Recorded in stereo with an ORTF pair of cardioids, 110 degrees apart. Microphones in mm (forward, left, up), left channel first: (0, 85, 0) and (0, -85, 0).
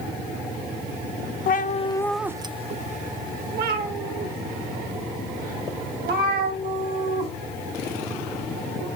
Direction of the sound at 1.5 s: 60° left.